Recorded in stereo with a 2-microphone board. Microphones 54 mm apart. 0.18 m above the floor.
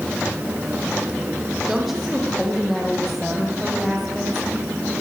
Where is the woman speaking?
Centre (ahead or behind), 8.5 m.